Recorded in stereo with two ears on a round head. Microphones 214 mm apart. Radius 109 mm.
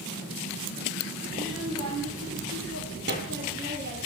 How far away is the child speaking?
About 7 m.